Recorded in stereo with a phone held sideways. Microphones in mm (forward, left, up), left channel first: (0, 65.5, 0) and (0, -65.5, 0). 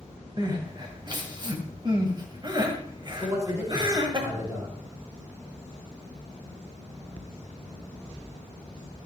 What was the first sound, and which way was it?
Crying, 35° right (ahead or behind).